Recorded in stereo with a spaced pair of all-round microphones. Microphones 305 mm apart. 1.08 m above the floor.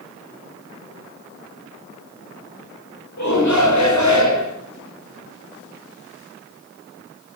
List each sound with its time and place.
3.2 s a shout: 65° left (ahead or behind), 5 m